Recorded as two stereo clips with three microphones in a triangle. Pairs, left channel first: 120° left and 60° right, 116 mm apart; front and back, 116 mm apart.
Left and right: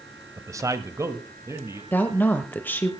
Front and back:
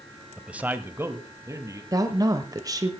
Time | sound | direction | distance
0.4 | a man speaking | 100° right | 1.0 m
1.9 | a woman speaking | straight behind | 1.0 m